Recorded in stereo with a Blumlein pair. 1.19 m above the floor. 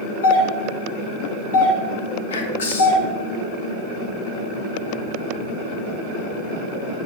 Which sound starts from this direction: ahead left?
Whispering, at 2.3 s.